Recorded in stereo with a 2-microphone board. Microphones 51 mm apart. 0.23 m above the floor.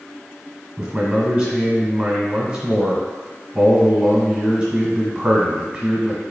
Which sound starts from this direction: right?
A man speaking, at 0.8 s.